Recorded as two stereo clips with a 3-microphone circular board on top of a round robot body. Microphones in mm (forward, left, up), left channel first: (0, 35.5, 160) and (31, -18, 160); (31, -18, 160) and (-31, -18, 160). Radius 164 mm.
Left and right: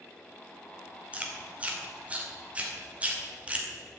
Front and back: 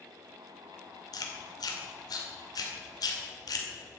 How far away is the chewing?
About 2 m.